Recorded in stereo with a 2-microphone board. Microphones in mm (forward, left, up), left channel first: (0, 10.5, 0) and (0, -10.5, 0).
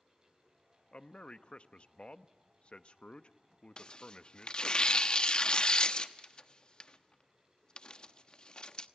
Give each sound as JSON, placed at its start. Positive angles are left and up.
{"t": 0.9, "sound": "a man speaking", "side_deg": 55, "distance_m": 0.9}
{"t": 3.8, "sound": "tearing paper", "side_deg": 40, "distance_m": 0.9}